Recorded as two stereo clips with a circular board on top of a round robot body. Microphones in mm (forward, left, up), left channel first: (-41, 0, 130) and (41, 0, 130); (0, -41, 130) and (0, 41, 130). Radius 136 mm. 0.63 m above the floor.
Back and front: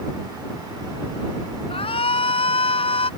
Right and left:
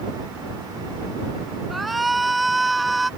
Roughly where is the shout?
Behind.